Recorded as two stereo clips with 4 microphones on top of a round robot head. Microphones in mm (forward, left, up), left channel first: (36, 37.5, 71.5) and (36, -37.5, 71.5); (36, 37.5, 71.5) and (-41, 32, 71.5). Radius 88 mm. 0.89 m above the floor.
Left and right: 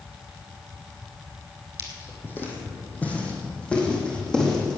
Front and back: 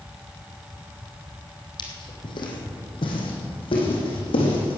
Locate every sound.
1.8 s footsteps: 35° left, 2.5 m; by 4.8 s 5° left, 3.5 m